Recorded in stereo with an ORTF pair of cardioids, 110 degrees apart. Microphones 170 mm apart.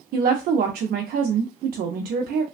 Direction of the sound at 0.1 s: 65° right.